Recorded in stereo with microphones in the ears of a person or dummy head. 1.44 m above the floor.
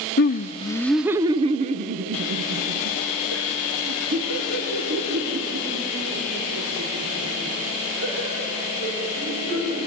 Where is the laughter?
50° left (ahead or behind), 0.9 m; by 9.8 s 75° right (ahead or behind), 8.5 m.